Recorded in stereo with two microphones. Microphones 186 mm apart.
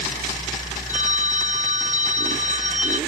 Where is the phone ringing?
45° right (ahead or behind).